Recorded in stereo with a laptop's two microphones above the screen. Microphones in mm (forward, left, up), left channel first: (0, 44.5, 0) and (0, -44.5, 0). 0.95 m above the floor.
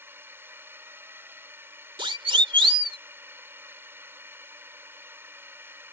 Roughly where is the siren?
Right.